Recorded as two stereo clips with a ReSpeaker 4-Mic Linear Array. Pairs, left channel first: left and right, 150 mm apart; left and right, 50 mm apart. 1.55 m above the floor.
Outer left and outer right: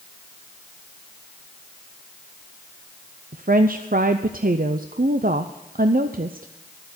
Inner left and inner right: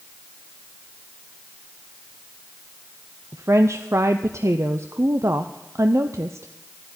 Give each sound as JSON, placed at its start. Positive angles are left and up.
{"t": 3.3, "sound": "a woman speaking", "side_deg": -70, "distance_m": 0.6}